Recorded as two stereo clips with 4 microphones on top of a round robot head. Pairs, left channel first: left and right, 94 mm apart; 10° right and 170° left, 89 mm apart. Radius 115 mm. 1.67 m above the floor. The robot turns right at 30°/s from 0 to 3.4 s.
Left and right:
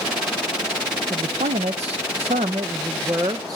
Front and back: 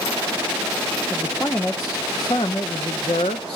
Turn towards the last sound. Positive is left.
turn(degrees=-30)